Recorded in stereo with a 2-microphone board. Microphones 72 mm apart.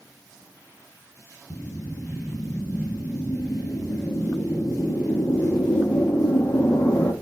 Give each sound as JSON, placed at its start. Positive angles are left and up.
{"t": 1.5, "sound": "a whoosh", "side_deg": 40, "distance_m": 1.1}